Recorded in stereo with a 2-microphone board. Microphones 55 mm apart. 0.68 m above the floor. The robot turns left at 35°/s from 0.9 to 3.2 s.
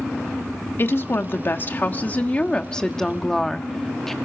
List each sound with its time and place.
0.8 s a woman speaking: 90° left, 1.4 m; by 4.1 s 10° left, 1.4 m